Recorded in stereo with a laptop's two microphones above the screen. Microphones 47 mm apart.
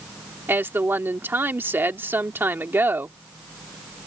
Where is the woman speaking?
50° right (ahead or behind).